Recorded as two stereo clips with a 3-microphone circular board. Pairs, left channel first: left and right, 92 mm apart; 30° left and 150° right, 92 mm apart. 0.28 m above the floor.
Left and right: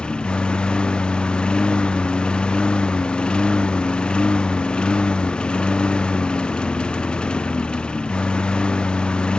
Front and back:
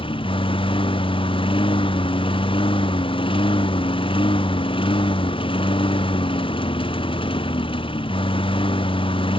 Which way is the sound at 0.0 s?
10° left.